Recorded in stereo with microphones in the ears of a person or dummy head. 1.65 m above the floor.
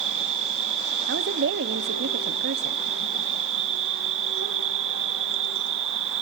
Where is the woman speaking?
60° right (ahead or behind), 1.1 m.